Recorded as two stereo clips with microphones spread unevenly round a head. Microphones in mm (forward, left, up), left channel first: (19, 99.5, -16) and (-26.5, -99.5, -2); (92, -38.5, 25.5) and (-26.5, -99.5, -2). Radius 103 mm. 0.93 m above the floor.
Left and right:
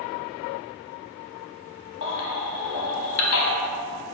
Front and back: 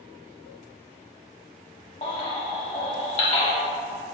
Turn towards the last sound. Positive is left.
turn(degrees=90)